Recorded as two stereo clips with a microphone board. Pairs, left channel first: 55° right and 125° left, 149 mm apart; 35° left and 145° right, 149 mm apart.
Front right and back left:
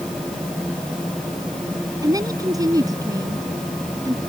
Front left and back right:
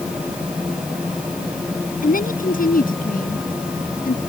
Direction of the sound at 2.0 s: 60° left.